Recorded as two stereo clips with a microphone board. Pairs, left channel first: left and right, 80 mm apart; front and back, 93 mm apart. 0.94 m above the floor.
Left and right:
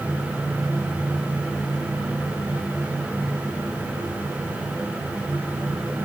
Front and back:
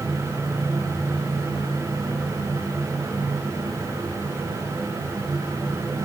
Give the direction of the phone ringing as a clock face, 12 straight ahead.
I don't hear a phone ringing.